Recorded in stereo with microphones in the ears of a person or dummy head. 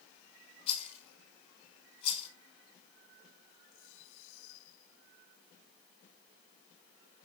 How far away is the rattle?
About 5.5 m.